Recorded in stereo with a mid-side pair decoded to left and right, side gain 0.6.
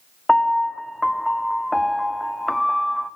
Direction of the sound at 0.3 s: 5° left.